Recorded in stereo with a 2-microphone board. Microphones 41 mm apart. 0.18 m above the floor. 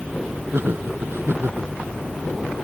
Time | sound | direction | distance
0.5 | laughter | 70° right (ahead or behind) | ?